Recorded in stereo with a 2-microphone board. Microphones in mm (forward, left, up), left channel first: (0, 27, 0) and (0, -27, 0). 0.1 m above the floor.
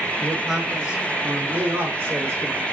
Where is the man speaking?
5° left (ahead or behind), 1.3 m; by 2.6 s 50° right (ahead or behind), 1.6 m.